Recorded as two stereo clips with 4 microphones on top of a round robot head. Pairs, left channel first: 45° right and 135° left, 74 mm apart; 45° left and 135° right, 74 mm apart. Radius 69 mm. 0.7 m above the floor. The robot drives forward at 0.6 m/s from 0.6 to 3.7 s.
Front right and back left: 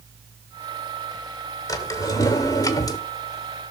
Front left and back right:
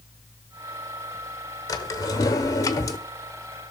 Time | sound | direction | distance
1.7 | a drawer | 5° right | 1.7 m